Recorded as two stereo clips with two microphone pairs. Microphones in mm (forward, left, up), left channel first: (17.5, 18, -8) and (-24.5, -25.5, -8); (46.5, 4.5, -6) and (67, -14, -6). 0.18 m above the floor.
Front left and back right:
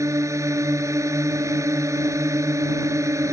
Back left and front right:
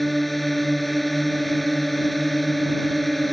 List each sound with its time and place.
0.0 s a drone: 135° right